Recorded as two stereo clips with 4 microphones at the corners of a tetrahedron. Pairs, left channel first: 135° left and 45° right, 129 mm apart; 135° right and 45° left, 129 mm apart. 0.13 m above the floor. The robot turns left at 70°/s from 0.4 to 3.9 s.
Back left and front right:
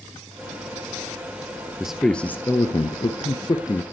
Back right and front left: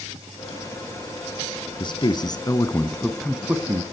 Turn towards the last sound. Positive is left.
turn(degrees=90)